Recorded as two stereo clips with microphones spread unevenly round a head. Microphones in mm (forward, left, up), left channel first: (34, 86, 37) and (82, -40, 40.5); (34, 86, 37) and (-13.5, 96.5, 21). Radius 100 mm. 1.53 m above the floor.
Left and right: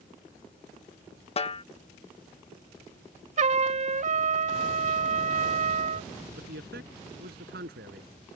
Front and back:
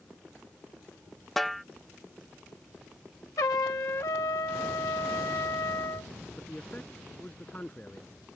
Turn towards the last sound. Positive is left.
turn(degrees=-90)